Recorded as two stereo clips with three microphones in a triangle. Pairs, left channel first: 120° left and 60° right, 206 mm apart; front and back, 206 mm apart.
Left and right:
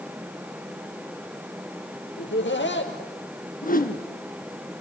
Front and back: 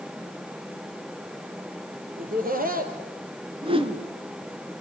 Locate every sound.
2.2 s laughter: 140° left, 4 m
3.6 s a whoosh: 130° left, 2 m